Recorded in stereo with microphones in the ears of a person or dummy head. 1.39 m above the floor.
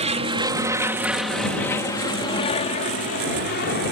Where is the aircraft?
30° right (ahead or behind); by 3.9 s 50° left (ahead or behind).